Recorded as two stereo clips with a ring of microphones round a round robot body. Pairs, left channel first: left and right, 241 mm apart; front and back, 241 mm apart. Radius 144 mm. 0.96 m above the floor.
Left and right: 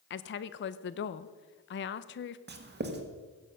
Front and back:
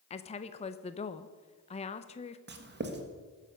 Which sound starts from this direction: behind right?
Writing, at 2.5 s.